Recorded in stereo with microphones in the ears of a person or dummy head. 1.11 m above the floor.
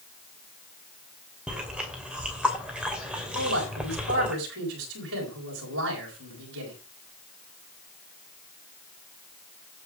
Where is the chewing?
5° right (ahead or behind), 2.5 m.